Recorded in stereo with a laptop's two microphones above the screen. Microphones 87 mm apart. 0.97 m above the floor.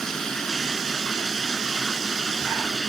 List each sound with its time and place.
0.0 s running water: 5° left (ahead or behind)